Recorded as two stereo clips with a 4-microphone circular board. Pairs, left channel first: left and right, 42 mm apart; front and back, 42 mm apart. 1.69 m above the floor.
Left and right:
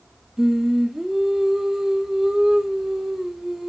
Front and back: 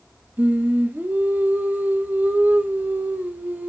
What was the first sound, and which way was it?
Singing, 170° right.